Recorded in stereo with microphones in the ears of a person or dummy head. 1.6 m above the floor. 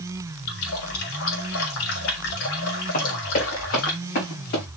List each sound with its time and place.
0.5 s a running tap: 70° left (ahead or behind), 2 m
2.9 s running footsteps: 50° left (ahead or behind), 6 m; by 4.7 s 55° left (ahead or behind), 7 m